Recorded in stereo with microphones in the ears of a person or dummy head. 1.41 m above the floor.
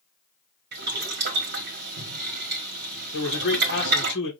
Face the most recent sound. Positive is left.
turn(degrees=65)  # may be behind; listen again after turning